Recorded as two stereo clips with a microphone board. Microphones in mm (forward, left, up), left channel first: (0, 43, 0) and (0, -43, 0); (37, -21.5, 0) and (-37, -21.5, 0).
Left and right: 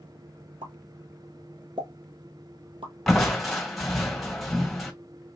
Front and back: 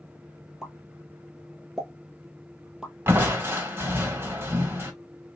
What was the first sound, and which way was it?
A pop, 100° right.